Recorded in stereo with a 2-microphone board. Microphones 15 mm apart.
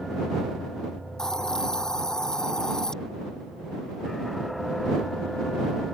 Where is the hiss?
50° left (ahead or behind).